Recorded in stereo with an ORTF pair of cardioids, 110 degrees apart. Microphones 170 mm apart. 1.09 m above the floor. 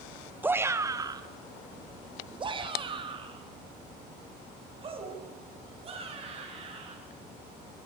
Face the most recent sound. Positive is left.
turn(degrees=-35)